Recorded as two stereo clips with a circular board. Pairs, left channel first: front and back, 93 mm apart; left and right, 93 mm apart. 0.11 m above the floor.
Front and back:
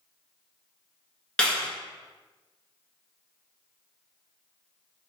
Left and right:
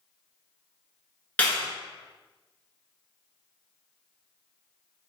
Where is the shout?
I don't hear a shout.